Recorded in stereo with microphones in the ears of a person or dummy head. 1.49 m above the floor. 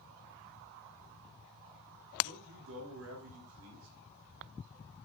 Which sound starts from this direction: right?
A man speaking, at 2.2 s.